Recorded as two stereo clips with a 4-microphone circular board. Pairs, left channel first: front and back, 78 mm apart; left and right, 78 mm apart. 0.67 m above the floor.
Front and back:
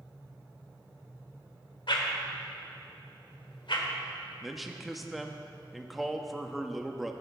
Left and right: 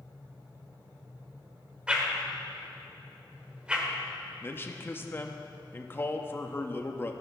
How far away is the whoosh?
About 1.3 m.